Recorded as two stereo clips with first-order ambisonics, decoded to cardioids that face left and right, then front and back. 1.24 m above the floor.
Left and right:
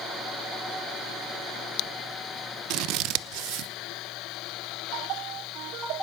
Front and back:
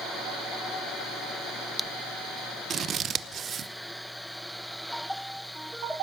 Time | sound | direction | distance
2.7 | scissors | 120° right | 0.7 m